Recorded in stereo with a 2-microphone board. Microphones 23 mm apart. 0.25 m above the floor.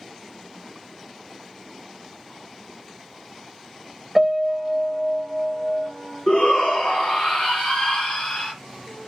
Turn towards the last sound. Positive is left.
turn(degrees=35)  # may be behind; listen again after turning